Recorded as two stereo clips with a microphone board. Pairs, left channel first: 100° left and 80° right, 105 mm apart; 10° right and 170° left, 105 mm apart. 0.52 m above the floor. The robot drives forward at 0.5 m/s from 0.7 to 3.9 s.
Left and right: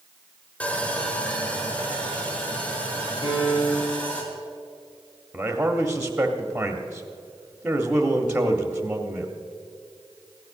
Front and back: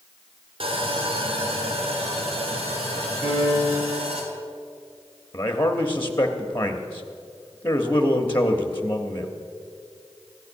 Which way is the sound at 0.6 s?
175° left.